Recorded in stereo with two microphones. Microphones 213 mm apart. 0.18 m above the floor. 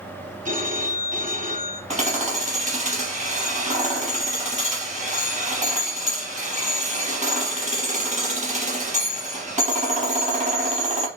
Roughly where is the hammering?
Right.